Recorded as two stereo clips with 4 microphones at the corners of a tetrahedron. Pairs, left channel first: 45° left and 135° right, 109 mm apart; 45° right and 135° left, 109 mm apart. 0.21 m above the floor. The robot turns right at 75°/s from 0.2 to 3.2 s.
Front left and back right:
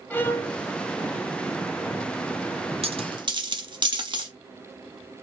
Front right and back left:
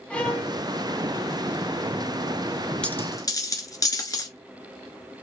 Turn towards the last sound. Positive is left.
turn(degrees=-95)